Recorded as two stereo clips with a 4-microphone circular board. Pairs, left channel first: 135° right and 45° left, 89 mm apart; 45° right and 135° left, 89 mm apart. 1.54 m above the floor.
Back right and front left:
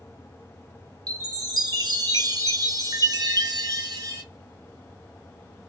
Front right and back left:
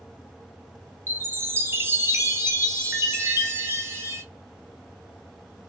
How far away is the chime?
About 0.6 m.